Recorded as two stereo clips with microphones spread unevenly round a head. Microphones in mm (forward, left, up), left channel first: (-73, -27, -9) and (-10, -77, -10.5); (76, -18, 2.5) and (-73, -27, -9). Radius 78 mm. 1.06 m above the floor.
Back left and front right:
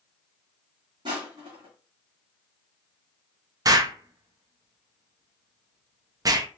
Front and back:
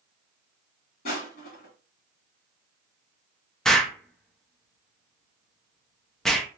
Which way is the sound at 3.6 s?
85° right.